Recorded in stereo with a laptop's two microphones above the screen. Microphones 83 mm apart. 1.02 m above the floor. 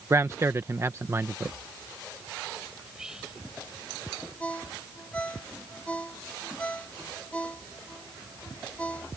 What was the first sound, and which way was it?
A man speaking, 35° right (ahead or behind).